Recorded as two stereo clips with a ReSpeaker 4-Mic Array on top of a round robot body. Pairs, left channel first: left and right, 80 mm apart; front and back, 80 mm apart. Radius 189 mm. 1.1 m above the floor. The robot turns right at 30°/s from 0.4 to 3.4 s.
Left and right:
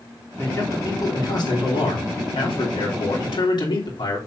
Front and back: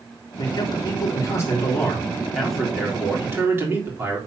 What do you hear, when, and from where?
0.4 s a man speaking: 25° left, 4 m; by 4.2 s 115° left, 4 m